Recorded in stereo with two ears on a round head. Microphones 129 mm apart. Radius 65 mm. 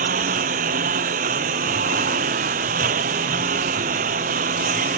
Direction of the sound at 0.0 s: 60° right (ahead or behind).